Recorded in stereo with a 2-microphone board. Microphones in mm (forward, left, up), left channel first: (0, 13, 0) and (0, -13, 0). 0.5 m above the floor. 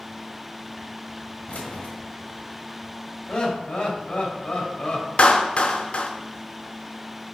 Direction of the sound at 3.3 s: 45° left (ahead or behind).